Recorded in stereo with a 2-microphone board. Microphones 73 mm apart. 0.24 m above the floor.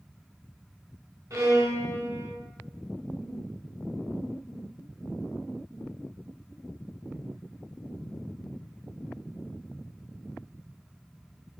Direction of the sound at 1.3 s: 50° right (ahead or behind).